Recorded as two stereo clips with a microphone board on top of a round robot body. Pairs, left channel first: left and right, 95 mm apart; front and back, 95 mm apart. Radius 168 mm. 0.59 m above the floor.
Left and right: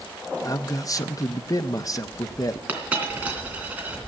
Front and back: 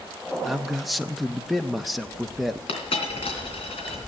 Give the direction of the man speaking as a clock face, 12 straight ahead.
9 o'clock.